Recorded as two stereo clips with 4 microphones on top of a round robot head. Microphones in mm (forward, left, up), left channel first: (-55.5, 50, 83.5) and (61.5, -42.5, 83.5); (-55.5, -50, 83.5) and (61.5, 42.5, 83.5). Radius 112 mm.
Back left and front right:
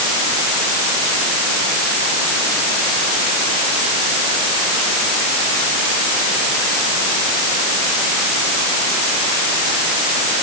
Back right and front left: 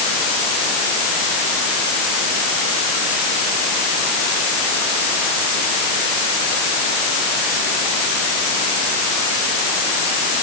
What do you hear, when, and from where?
Only background noise.